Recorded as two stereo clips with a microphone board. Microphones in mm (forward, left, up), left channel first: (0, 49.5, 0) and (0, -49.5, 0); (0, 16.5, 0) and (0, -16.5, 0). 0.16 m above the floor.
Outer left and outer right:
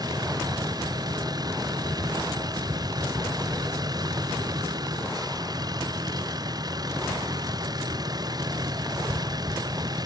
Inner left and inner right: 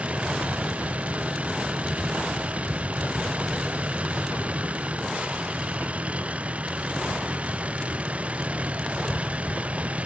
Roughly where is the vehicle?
Right.